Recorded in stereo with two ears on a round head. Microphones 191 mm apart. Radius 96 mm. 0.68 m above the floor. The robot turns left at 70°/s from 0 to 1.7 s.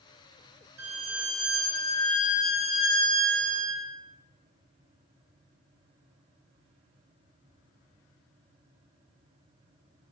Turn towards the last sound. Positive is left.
turn(degrees=170)